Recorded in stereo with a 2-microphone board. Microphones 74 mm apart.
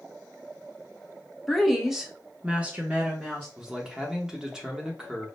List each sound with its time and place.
1.5 s a woman speaking: centre (ahead or behind), 1.0 m; by 3.5 s 20° right (ahead or behind), 1.0 m
3.6 s a man speaking: 10° right (ahead or behind), 0.8 m